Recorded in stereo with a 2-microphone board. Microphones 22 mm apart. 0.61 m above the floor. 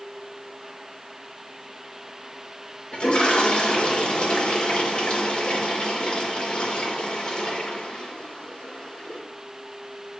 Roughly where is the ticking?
I don't hear ticking.